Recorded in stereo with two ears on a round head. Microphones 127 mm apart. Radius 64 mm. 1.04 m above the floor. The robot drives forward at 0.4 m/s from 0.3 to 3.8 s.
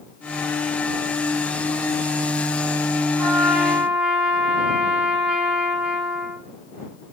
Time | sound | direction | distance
3.2 | a trumpet | 10° right (ahead or behind) | 4.5 m